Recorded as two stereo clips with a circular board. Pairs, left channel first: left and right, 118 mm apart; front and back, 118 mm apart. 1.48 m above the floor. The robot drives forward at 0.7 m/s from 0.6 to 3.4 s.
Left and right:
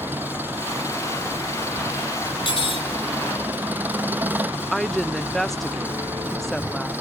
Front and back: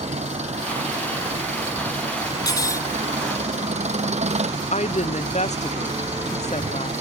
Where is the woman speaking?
Straight ahead.